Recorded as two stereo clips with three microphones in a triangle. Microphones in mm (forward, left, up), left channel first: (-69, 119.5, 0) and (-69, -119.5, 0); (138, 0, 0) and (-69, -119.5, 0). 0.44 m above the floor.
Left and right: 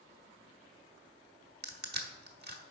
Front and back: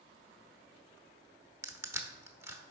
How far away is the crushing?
About 0.9 m.